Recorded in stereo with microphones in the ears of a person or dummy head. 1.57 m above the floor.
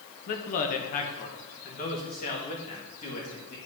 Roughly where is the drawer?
No drawer in this recording.